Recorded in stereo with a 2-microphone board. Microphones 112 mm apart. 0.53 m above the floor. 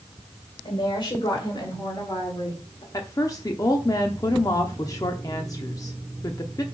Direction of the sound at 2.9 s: 35° left (ahead or behind).